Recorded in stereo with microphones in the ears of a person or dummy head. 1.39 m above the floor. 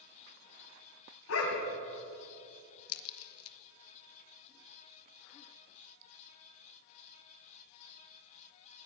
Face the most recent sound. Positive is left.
turn(degrees=85)